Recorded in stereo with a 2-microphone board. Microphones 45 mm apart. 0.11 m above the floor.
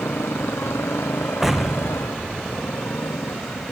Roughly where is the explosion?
Centre.